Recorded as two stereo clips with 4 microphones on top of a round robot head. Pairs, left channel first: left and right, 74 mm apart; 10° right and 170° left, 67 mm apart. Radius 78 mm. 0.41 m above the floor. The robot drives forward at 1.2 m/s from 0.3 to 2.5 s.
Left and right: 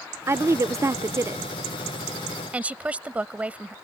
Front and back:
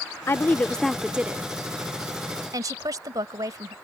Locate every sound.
0.3 s a woman speaking: 50° right; by 3.8 s 160° right